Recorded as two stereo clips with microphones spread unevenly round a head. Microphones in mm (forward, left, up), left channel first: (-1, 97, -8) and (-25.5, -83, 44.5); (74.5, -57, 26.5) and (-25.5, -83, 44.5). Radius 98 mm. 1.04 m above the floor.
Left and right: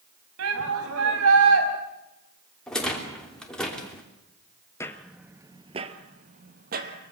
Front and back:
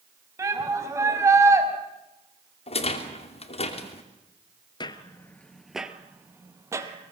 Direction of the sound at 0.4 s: 105° right.